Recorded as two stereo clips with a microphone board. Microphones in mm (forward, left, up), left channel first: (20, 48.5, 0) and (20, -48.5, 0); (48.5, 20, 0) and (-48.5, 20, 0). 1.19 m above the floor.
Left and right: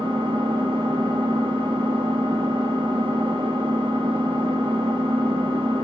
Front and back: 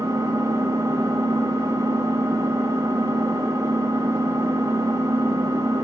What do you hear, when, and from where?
0.0 s an engine running: 120° right, 1.4 m